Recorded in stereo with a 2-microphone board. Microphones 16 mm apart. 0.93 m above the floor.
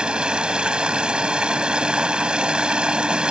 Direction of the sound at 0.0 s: 85° right.